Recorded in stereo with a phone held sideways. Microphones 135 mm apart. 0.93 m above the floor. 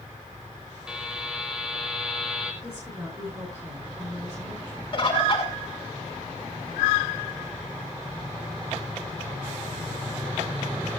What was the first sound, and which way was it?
A buzzer, 5° right (ahead or behind).